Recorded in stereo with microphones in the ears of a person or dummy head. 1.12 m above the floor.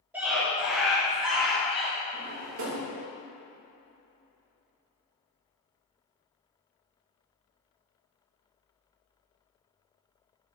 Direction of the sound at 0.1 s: 10° right (ahead or behind).